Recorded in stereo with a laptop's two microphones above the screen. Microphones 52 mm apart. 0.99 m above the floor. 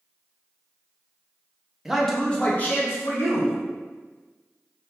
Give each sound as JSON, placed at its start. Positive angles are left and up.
{"t": 1.9, "sound": "a man speaking", "side_deg": -5, "distance_m": 0.6}